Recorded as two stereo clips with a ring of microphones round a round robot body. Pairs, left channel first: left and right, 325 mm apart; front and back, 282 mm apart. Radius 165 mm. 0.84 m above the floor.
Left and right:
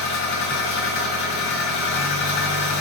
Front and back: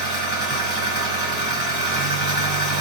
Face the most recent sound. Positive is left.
turn(degrees=55)